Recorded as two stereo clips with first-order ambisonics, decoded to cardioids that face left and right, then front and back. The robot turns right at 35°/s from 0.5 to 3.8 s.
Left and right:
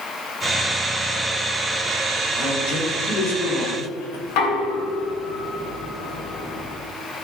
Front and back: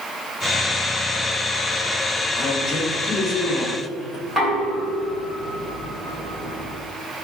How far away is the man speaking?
About 3.5 m.